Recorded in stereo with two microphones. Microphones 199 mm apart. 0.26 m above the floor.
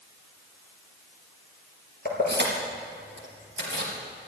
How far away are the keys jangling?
About 3.5 m.